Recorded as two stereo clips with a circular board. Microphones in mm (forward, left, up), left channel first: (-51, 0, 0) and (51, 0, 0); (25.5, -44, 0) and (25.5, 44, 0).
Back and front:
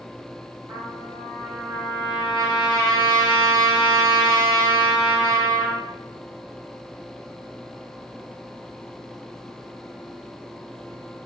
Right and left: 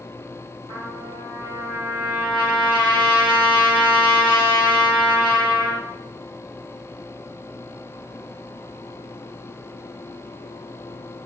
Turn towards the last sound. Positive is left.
turn(degrees=60)